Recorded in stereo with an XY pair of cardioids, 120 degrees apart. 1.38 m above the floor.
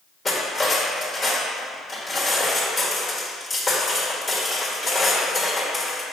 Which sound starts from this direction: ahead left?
Cutlery clinking, at 0.2 s.